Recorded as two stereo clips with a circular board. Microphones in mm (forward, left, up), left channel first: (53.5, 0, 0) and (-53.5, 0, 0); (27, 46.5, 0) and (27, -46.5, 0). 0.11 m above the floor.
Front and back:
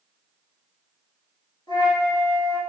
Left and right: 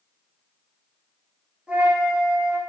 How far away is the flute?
About 1.5 m.